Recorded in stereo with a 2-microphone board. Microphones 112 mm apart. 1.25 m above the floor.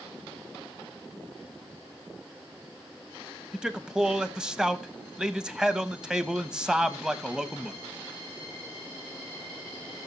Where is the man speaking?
5° right (ahead or behind), 1.0 m.